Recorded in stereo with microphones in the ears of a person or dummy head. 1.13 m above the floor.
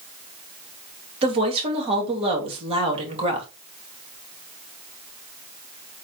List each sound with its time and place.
1.2 s a woman speaking: 35° right (ahead or behind), 2 m